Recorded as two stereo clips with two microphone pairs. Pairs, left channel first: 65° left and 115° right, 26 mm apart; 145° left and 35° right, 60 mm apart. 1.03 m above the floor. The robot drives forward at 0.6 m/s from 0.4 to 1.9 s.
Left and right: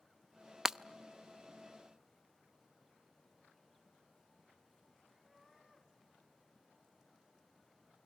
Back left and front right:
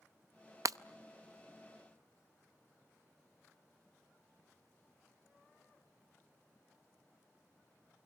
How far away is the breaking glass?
About 0.6 m.